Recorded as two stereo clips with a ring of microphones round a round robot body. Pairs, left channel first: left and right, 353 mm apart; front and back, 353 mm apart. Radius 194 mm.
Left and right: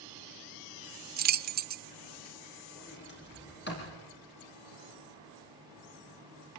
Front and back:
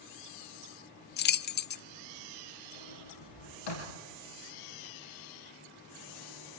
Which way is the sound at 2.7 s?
30° left.